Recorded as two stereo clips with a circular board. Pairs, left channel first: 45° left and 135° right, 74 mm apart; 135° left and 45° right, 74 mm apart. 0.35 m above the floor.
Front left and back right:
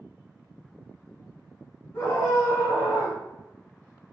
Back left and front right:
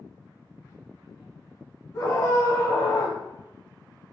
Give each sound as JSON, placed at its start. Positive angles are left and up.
{"t": 1.9, "sound": "a scream", "azimuth_deg": 95, "distance_m": 3.5}